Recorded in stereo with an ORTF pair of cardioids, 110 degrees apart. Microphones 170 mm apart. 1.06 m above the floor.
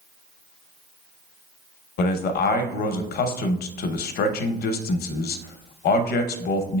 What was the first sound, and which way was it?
A man speaking, 70° left.